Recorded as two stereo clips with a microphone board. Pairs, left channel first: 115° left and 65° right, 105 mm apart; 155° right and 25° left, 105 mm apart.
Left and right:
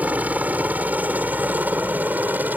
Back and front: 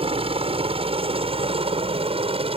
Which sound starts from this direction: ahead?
A helicopter, at 0.0 s.